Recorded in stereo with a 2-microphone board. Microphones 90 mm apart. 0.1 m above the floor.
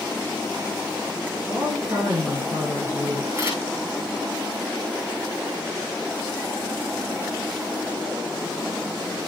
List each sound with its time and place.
1.5 s a woman speaking: 30° right (ahead or behind), 5.5 m
3.3 s a camera shutter: 25° right (ahead or behind), 8 m